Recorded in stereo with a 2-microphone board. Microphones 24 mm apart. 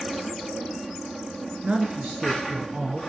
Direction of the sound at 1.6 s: 45° right (ahead or behind).